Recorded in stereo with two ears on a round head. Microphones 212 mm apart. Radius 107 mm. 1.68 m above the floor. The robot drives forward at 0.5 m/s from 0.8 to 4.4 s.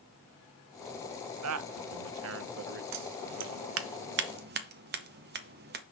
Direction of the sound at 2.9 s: 75° right (ahead or behind).